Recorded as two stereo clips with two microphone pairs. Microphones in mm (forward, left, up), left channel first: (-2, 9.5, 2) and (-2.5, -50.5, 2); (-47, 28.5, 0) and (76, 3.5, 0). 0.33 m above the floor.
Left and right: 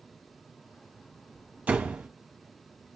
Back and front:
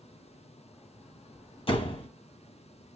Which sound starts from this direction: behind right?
A door slam, at 1.7 s.